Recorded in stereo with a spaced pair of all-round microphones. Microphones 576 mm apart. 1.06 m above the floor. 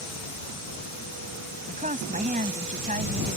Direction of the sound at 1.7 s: 15° right (ahead or behind).